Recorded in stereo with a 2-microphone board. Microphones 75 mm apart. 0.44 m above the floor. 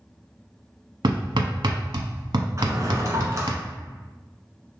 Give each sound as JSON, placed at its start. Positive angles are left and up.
{"t": 1.0, "sound": "hammering", "side_deg": -75, "distance_m": 0.8}
{"t": 2.6, "sound": "a drawer", "side_deg": -40, "distance_m": 1.3}